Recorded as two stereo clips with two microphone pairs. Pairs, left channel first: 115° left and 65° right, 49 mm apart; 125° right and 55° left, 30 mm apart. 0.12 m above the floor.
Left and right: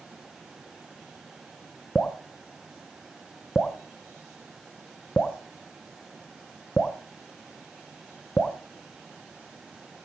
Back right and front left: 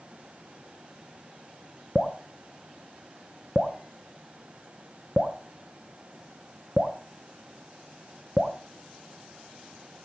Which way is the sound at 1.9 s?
60° left.